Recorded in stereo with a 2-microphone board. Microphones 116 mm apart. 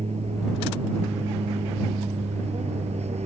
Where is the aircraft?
70° right (ahead or behind).